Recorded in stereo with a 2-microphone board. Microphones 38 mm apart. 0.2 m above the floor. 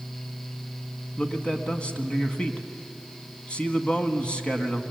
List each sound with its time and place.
1.2 s a man speaking: 25° left (ahead or behind), 1.7 m